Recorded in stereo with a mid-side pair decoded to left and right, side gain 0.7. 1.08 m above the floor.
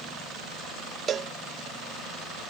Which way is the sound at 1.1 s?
35° right.